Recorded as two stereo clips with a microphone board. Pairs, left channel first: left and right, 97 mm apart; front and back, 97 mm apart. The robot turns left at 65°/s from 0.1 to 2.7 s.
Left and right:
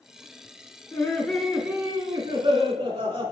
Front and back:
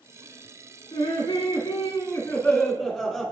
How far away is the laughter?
About 2.5 m.